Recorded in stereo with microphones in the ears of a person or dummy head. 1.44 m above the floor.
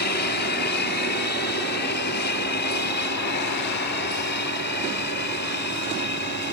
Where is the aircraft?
50° left (ahead or behind).